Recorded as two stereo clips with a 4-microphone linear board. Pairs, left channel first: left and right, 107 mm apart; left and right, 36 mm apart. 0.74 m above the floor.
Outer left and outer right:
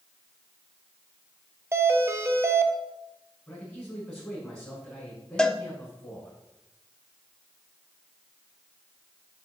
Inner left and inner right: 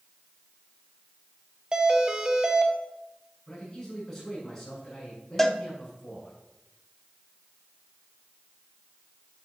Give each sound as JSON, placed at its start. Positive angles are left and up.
{"t": 1.7, "sound": "a doorbell", "side_deg": -25, "distance_m": 0.9}
{"t": 3.5, "sound": "a man speaking", "side_deg": 5, "distance_m": 6.0}
{"t": 5.4, "sound": "a cowbell", "side_deg": 5, "distance_m": 0.7}